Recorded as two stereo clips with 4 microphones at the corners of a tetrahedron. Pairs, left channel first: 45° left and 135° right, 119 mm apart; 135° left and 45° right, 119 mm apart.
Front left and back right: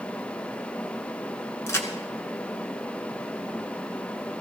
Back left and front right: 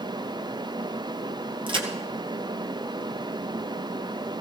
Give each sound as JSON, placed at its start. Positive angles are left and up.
{"t": 1.7, "sound": "a crack", "azimuth_deg": -15, "distance_m": 1.9}